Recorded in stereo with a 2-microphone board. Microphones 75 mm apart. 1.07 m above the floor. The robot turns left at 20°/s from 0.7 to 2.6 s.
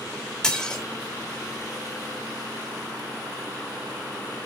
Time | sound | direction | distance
0.4 | dishes clattering | 10° left (ahead or behind) | 1.4 m